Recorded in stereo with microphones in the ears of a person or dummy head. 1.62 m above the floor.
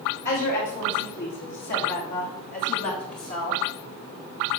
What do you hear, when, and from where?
0.2 s a woman speaking: 60° left (ahead or behind), 4 m; by 3.6 s 35° left (ahead or behind), 2.0 m